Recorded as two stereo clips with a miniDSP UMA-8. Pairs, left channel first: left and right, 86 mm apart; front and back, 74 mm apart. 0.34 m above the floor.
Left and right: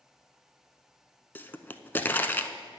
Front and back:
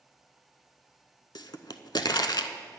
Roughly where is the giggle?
I don't hear a giggle.